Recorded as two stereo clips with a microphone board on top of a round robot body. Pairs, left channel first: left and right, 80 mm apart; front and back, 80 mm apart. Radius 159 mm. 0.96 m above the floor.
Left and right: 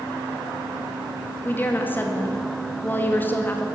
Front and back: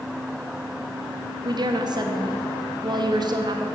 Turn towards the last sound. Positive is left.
turn(degrees=155)